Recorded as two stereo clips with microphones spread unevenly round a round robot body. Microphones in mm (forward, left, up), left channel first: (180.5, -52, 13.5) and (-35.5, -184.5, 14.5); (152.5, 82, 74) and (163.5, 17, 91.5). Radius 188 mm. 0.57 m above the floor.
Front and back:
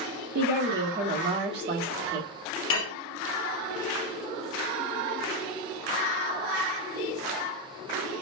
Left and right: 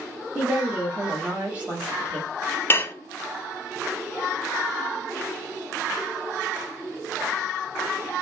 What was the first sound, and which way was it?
A woman speaking, 160° right.